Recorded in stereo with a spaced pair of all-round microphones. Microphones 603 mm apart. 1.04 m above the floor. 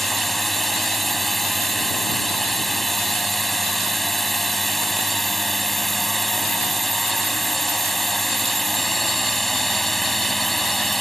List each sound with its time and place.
0.0 s a drone: centre (ahead or behind)